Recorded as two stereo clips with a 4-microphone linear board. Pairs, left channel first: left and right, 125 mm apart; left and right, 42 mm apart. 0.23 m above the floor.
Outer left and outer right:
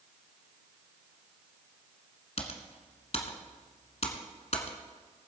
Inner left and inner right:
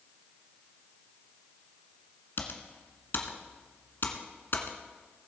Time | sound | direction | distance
2.4 | typing on a keyboard | 60° left (ahead or behind) | 1.4 m